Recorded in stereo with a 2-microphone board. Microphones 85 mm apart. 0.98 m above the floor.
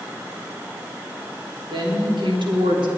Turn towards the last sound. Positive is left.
turn(degrees=-75)  # may be behind; listen again after turning